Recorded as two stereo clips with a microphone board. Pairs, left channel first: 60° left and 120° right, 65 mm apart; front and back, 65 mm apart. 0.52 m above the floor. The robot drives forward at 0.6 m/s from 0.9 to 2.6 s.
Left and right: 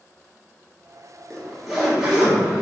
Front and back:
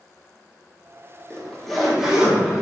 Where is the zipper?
15° right, 0.9 m; by 2.6 s 170° right, 1.0 m.